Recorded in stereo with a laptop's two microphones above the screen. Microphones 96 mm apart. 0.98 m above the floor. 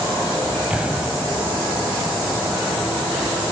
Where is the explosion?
10° right (ahead or behind), 2.5 m.